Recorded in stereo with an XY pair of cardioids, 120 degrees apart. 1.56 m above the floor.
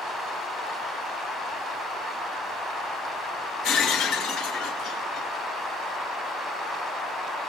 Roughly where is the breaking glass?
Left.